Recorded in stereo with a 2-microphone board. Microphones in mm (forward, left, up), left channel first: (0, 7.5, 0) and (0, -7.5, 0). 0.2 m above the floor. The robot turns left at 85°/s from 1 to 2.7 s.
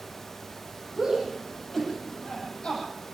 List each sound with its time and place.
1.0 s a shout: 45° right (ahead or behind), 8.5 m; by 2.8 s 75° left (ahead or behind), 8.5 m